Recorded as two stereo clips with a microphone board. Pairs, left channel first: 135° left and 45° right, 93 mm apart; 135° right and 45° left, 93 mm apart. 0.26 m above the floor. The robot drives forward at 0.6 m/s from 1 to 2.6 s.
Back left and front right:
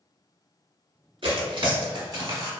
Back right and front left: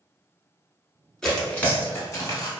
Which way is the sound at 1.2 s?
55° right.